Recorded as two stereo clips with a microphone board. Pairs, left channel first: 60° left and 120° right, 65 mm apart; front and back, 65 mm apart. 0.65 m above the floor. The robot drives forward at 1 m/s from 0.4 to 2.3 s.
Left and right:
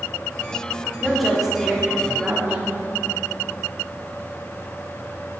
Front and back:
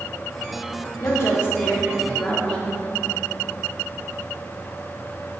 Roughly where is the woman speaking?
Ahead right.